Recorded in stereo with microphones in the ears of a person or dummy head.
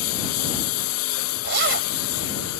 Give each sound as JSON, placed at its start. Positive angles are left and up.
{"t": 0.0, "sound": "a lawn mower", "side_deg": 85}
{"t": 1.4, "sound": "a zipper", "side_deg": -70}